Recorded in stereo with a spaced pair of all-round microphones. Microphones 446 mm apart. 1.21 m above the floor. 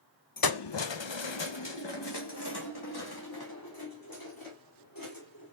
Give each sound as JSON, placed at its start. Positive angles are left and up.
{"t": 0.4, "sound": "keys jangling", "side_deg": 50, "distance_m": 0.5}